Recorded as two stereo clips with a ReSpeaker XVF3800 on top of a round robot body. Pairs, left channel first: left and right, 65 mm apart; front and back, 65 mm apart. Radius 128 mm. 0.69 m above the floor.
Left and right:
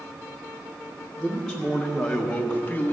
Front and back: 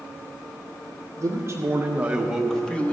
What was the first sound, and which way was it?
A man speaking, 175° right.